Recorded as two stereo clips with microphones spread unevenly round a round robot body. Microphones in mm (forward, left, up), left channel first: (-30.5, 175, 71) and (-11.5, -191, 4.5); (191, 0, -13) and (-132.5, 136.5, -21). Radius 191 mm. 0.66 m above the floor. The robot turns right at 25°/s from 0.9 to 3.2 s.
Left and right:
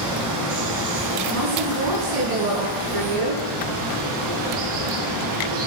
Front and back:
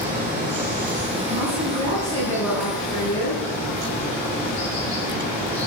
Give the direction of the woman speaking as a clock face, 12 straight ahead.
5 o'clock.